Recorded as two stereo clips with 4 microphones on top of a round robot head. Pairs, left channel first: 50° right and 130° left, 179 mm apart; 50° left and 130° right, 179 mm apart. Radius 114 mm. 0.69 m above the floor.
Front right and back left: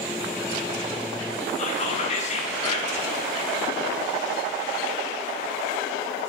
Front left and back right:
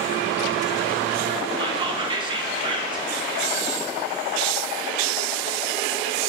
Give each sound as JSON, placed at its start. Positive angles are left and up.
{"t": 1.6, "sound": "whispering", "azimuth_deg": -80, "distance_m": 0.7}